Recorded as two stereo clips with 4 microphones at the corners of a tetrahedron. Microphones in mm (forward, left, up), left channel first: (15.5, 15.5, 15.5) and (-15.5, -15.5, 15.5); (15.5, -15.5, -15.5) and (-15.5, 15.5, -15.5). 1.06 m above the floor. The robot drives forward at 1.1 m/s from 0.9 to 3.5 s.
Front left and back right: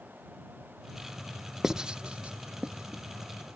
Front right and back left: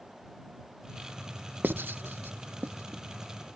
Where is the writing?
150° left; by 3.0 s 170° left.